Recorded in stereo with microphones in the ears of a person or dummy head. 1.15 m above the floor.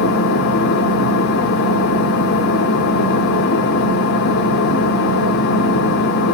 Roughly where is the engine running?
Left.